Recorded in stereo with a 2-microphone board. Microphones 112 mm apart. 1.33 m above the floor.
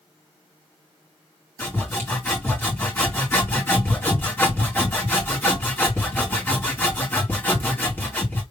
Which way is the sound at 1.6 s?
20° left (ahead or behind).